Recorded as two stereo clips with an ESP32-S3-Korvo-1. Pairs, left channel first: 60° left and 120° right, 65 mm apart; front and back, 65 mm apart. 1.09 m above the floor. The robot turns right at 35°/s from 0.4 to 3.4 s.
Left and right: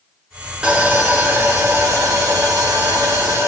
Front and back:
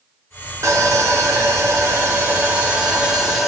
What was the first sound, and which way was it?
Sawing, 170° left.